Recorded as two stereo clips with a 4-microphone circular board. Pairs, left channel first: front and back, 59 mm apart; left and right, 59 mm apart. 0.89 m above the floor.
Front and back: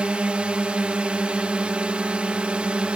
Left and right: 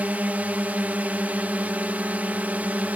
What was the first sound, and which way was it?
A drone, 125° right.